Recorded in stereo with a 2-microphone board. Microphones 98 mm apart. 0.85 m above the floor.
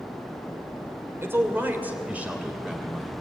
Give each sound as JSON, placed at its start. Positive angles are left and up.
{"t": 1.2, "sound": "a man speaking", "side_deg": -25, "distance_m": 3.0}